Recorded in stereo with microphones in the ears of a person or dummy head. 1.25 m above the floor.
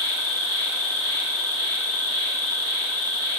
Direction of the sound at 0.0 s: 5° left (ahead or behind).